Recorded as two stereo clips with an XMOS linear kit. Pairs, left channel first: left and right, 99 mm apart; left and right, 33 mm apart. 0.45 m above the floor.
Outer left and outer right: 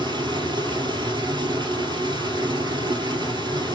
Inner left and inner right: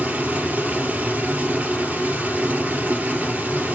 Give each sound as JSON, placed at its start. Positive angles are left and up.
{"t": 0.0, "sound": "running water", "side_deg": -50, "distance_m": 2.5}